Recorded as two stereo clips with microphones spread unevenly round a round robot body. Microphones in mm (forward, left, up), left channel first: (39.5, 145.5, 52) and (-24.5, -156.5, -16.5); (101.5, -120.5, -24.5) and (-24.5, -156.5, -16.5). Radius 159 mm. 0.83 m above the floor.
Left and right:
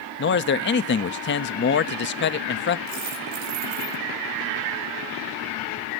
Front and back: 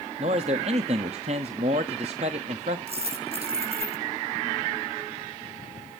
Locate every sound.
0.2 s a man speaking: 140° left, 0.8 m
2.9 s a dropped coin: 125° right, 6.5 m